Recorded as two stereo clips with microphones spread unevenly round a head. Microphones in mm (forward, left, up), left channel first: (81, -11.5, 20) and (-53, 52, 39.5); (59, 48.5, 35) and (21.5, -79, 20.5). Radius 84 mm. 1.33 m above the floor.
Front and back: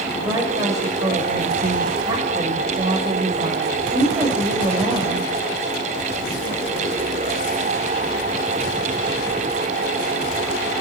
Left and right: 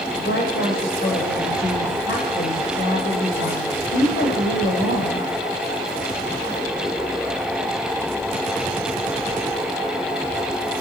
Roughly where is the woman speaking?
Left.